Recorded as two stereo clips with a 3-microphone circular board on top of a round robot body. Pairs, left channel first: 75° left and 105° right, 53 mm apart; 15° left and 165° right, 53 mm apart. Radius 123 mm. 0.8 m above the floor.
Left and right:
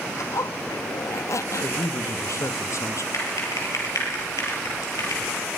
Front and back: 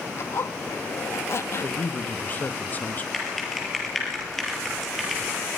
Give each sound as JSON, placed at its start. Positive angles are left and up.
{"t": 0.2, "sound": "a zipper", "azimuth_deg": 55, "distance_m": 0.8}
{"t": 1.6, "sound": "a man speaking", "azimuth_deg": 70, "distance_m": 1.3}
{"t": 3.1, "sound": "typing on a keyboard", "azimuth_deg": 105, "distance_m": 6.5}